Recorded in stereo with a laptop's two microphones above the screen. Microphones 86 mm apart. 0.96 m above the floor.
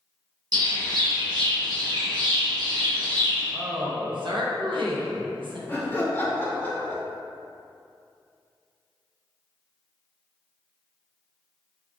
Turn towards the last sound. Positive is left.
turn(degrees=20)  # may be behind; listen again after turning